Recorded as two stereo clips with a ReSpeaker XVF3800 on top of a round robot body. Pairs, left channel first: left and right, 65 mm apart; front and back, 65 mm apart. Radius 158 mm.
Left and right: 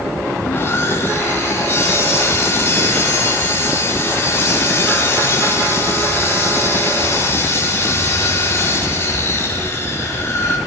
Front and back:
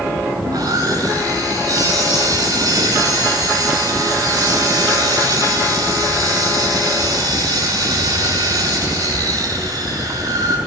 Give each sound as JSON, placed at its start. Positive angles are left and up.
{"t": 0.4, "sound": "sawing", "azimuth_deg": 150, "distance_m": 6.5}